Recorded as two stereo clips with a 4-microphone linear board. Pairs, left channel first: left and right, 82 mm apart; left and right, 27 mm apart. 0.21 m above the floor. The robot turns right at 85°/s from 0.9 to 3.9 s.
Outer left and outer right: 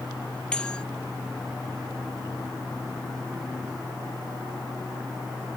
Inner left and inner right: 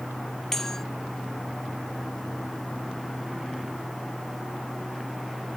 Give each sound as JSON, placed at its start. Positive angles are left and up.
{"t": 0.5, "sound": "a bell", "side_deg": 10}